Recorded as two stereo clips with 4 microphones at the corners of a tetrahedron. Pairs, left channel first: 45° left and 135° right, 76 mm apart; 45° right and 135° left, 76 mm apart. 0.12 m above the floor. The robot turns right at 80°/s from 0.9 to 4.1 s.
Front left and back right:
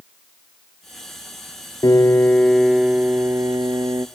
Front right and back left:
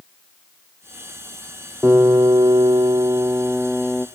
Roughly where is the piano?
Left.